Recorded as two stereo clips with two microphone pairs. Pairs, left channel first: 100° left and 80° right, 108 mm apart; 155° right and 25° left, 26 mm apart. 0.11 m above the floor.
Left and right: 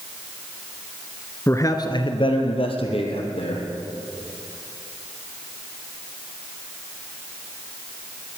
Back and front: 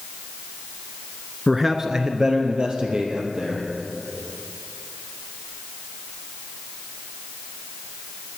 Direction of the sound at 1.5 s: 105° left.